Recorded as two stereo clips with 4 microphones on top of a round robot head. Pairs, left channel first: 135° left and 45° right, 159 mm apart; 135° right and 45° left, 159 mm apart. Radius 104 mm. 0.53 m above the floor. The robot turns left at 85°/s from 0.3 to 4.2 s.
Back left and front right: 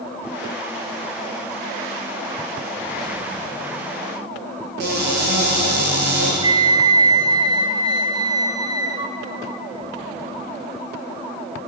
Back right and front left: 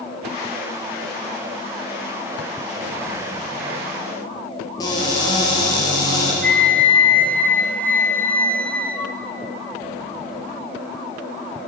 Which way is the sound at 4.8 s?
65° right.